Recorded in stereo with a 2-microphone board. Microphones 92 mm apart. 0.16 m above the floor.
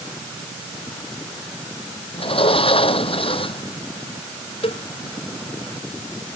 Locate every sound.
2.1 s a sliding door: 75° left (ahead or behind)
4.6 s a cowbell: 80° left